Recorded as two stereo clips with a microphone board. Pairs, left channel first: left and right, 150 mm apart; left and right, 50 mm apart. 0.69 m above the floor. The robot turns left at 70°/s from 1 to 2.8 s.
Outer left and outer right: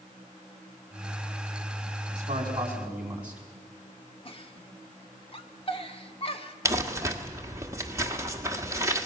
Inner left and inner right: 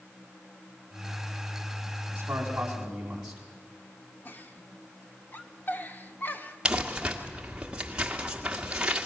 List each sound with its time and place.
2.1 s a man speaking: 120° right, 5 m; by 3.4 s 170° right, 5 m
4.2 s a giggle: 40° left (ahead or behind), 1.2 m
6.7 s crumpling: 20° right (ahead or behind), 1.6 m